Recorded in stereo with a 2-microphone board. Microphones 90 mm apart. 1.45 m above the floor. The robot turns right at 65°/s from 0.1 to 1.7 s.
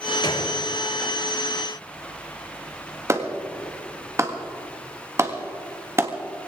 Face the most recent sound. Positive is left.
turn(degrees=-30)  # may be behind; listen again after turning